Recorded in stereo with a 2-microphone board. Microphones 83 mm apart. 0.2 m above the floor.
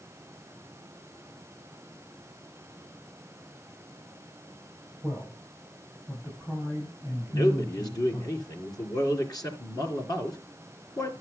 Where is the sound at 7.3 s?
50° left (ahead or behind), 3 m.